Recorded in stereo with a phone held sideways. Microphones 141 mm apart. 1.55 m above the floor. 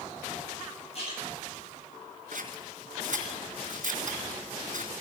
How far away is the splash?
About 8.5 m.